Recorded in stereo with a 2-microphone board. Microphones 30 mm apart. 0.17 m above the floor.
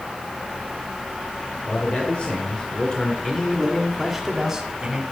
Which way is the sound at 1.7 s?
40° left (ahead or behind).